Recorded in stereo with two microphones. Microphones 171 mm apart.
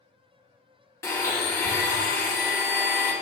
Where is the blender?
15° left (ahead or behind), 1.0 m.